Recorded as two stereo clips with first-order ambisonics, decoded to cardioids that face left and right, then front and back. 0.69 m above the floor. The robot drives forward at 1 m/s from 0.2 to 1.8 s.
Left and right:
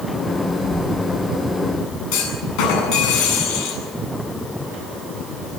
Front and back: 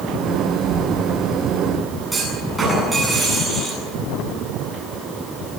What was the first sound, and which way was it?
An explosion, 145° left.